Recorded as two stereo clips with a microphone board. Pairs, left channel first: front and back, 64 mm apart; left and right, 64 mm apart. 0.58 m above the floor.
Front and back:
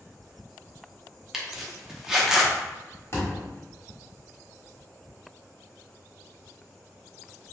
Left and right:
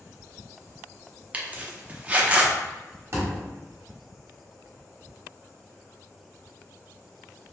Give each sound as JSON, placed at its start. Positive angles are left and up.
{"t": 1.3, "sound": "a zipper", "azimuth_deg": -110, "distance_m": 0.5}
{"t": 3.1, "sound": "a thud", "azimuth_deg": -45, "distance_m": 0.9}